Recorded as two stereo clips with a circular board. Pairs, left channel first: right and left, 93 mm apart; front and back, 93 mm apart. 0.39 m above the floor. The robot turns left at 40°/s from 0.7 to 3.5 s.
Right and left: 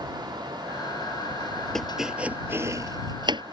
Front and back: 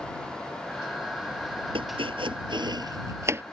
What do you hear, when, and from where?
1.8 s chopping: 175° right; by 3.4 s 115° left